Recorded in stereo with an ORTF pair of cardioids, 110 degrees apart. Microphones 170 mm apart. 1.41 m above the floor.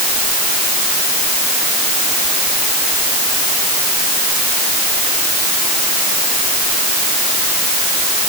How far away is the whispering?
I don't hear whispering.